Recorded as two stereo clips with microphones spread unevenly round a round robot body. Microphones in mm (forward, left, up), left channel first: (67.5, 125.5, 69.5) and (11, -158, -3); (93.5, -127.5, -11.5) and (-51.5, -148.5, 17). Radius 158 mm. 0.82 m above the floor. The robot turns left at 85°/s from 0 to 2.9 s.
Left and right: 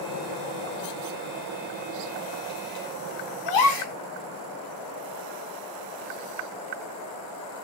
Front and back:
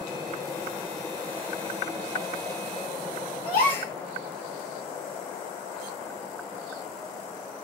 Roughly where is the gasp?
Ahead left.